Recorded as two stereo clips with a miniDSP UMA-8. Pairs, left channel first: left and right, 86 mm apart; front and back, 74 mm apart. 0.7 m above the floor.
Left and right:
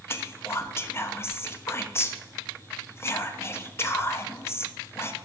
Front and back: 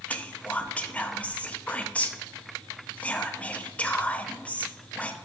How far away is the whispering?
About 0.5 m.